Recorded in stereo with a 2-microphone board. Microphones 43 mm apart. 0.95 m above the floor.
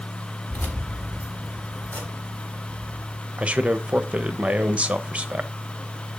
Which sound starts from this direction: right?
A man speaking, at 3.4 s.